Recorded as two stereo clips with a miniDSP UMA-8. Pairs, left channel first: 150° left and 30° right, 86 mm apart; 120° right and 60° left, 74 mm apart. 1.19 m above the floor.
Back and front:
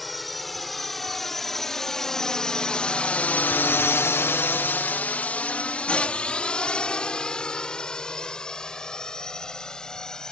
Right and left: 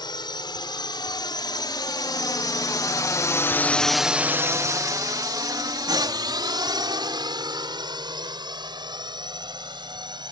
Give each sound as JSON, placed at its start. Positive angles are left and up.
{"t": 0.0, "sound": "a drone", "azimuth_deg": -120}